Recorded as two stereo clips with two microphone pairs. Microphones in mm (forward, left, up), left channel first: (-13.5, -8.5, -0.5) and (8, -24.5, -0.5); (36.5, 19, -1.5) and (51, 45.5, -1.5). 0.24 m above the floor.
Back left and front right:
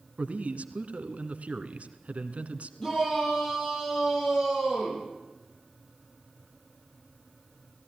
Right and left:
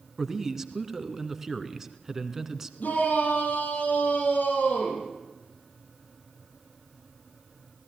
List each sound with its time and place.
0.2 s a man speaking: 20° right, 2 m
2.8 s a shout: 155° right, 8.5 m